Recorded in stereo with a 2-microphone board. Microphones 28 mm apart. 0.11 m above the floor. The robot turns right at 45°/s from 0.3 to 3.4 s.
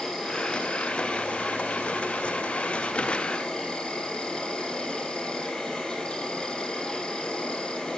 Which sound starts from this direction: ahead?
An insect, at 0.0 s.